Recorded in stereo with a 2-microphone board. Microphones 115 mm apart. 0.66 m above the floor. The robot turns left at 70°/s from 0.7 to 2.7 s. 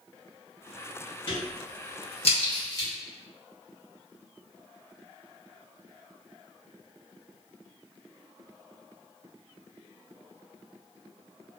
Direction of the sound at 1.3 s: 45° left (ahead or behind).